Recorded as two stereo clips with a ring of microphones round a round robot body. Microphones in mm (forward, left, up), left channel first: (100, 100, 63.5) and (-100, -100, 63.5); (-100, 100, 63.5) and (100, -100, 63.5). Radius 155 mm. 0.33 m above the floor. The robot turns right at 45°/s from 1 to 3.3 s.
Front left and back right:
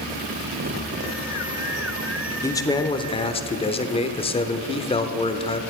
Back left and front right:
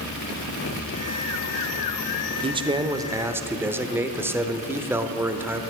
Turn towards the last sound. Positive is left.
turn(degrees=20)